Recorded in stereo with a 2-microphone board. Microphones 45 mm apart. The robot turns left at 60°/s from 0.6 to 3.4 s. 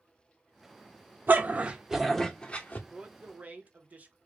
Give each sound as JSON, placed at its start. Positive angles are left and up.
{"t": 1.3, "sound": "a dog barking", "azimuth_deg": -135, "distance_m": 0.6}
{"t": 2.9, "sound": "a man speaking", "azimuth_deg": -30, "distance_m": 0.8}